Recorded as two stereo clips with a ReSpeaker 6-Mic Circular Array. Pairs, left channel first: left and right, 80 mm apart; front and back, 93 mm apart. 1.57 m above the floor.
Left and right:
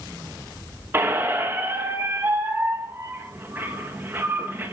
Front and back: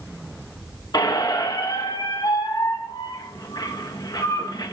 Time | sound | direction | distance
0.9 | a squeak | 35° right | 1.2 m